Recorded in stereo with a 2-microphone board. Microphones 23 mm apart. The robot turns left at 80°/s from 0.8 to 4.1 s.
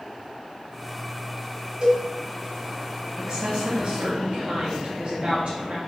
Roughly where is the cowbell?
Right.